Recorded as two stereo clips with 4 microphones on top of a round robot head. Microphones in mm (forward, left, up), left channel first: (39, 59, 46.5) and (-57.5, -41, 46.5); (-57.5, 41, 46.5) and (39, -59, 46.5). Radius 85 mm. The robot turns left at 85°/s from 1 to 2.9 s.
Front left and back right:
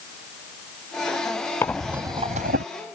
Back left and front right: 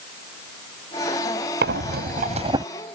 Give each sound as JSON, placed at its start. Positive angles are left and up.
{"t": 1.6, "sound": "breathing", "azimuth_deg": -25}